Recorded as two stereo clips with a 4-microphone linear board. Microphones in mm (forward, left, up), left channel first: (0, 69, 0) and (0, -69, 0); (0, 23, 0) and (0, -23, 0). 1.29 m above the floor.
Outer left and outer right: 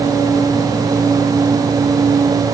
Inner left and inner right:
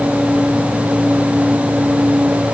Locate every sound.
Only background noise.